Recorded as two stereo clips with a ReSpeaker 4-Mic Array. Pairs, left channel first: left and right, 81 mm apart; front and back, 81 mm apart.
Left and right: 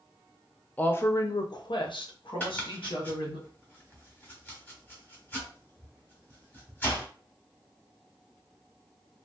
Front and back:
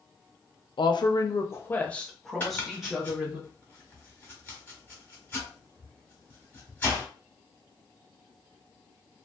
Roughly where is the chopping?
Ahead left.